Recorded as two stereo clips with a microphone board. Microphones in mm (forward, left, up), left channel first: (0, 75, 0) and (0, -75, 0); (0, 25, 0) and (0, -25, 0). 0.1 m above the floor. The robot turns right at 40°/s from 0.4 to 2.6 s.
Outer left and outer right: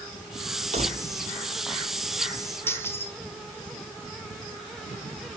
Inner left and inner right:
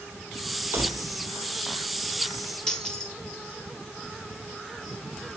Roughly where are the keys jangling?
Right.